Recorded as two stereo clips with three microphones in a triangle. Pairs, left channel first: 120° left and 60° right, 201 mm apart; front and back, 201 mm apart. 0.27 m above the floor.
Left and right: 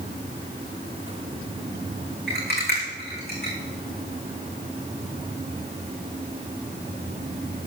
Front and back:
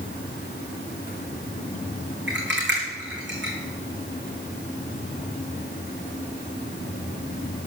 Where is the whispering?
I don't hear whispering.